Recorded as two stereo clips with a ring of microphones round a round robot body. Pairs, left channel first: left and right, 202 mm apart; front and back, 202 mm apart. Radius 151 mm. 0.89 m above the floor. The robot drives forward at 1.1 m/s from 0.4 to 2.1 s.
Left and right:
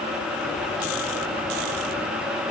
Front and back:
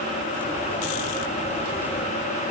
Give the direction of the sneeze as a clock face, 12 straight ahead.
No sneeze in this recording.